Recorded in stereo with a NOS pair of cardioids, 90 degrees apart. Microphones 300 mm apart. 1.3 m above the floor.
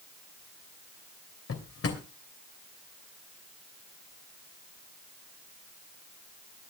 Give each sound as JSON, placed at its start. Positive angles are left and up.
{"t": 1.5, "sound": "a drawer", "azimuth_deg": 50, "distance_m": 3.0}